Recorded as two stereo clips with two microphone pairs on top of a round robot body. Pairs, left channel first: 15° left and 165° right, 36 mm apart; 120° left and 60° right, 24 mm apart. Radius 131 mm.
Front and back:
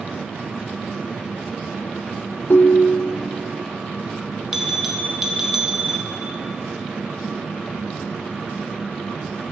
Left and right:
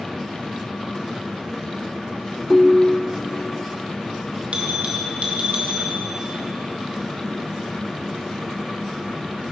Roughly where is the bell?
Right.